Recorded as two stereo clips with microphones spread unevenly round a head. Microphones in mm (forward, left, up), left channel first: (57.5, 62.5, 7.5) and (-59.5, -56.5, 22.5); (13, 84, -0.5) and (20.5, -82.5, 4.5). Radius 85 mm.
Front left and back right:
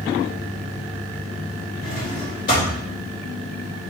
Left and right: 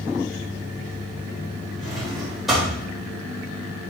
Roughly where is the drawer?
Ahead.